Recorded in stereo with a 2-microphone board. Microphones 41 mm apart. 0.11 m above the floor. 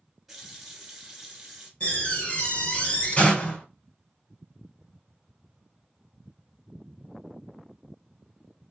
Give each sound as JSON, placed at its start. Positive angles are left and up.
{"t": 0.3, "sound": "a running tap", "side_deg": -5, "distance_m": 1.0}
{"t": 1.8, "sound": "a door slam", "side_deg": 35, "distance_m": 1.7}